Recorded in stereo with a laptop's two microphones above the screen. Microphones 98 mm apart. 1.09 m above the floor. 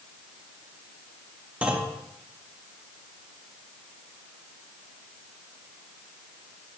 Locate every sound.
1.6 s a clunk: 15° right (ahead or behind), 0.8 m